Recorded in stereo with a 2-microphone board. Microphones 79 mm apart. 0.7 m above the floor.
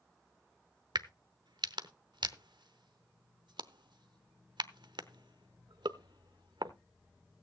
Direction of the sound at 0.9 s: 80° right.